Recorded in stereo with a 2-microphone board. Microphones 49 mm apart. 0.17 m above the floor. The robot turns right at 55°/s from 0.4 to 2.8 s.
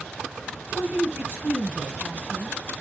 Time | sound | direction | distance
0.7 | a woman speaking | 155° right | 3.5 m